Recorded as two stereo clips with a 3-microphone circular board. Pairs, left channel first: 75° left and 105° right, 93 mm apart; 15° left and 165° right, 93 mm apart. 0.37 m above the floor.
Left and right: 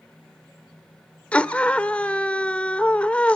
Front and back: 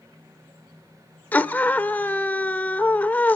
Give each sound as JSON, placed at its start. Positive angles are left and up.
{"t": 1.3, "sound": "a scream", "azimuth_deg": 35, "distance_m": 0.8}